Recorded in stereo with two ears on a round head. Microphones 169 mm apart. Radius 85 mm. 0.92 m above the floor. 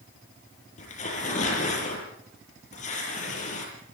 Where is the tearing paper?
40° left (ahead or behind), 7.5 m.